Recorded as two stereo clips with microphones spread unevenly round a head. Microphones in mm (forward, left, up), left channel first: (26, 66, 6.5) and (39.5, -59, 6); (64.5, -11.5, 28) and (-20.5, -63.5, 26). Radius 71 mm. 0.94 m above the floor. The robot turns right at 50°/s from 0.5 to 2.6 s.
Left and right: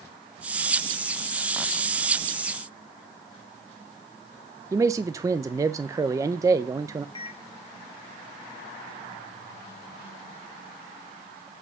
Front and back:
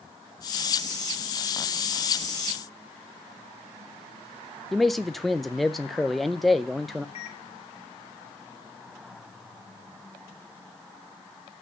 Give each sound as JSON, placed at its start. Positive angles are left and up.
{"t": 4.7, "sound": "a man speaking", "azimuth_deg": -60, "distance_m": 0.6}
{"t": 7.2, "sound": "a microwave", "azimuth_deg": 50, "distance_m": 1.3}